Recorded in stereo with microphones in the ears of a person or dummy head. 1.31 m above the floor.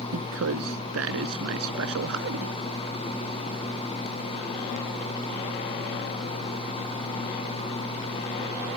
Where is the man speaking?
90° right.